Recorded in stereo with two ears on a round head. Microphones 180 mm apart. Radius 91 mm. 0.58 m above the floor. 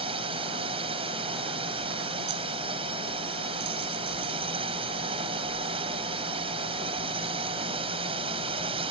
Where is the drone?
25° right (ahead or behind).